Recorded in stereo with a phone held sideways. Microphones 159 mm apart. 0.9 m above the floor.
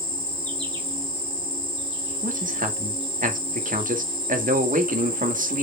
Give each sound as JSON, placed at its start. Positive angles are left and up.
{"t": 0.0, "sound": "an insect", "side_deg": -35, "distance_m": 3.5}
{"t": 2.2, "sound": "a man speaking", "side_deg": -60, "distance_m": 2.0}